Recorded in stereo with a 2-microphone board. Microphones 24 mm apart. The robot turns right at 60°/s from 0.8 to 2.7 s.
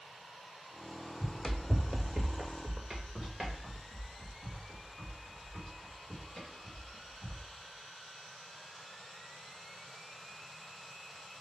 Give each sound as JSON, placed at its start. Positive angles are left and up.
{"t": 1.2, "sound": "running footsteps", "side_deg": 20, "distance_m": 0.8}